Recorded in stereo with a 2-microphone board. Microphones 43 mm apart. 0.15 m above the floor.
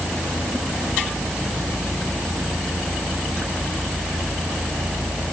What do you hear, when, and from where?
Only background noise.